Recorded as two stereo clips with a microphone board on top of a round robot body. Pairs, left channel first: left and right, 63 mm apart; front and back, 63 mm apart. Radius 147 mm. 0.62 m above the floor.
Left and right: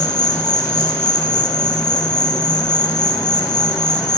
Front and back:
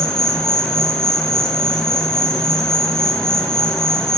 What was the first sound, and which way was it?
An insect, 80° left.